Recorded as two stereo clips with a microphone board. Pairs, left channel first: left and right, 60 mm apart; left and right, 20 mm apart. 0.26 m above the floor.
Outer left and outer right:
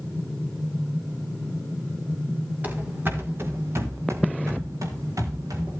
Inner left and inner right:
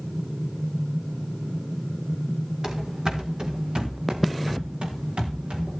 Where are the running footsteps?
30° right (ahead or behind), 2.5 m; by 5.8 s 75° right (ahead or behind), 4 m.